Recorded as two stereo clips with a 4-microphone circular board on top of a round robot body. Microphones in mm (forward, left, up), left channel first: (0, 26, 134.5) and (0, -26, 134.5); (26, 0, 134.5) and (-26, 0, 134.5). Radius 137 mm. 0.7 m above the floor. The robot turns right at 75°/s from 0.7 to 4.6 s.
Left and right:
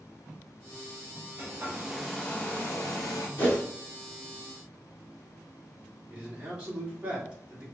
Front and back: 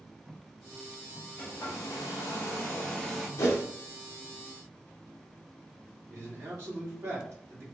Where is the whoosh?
30° left, 0.6 m; by 3.6 s 50° left, 0.6 m.